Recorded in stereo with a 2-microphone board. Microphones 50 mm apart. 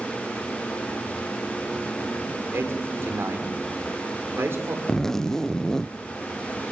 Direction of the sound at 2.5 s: 55° right (ahead or behind).